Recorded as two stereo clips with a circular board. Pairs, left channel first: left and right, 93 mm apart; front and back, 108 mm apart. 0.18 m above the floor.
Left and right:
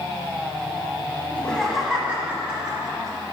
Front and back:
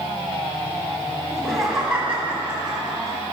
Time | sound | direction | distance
1.3 | laughter | 65° left | 1.2 m